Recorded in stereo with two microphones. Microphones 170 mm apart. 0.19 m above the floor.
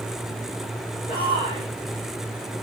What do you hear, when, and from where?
1.1 s a shout: 30° left (ahead or behind), 8 m